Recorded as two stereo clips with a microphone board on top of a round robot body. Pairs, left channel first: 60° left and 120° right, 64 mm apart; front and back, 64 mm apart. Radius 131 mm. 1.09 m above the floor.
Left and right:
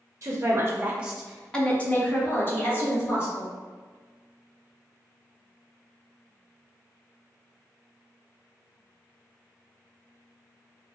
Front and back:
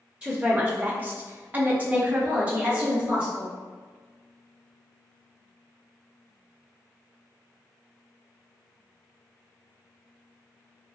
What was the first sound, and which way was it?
A woman speaking, 105° right.